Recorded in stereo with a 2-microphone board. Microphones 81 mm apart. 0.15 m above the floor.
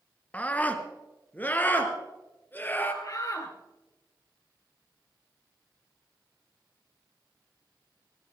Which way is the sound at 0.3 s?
15° left (ahead or behind).